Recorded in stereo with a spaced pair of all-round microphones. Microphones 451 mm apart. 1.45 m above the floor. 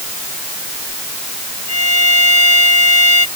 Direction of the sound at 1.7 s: 35° left (ahead or behind).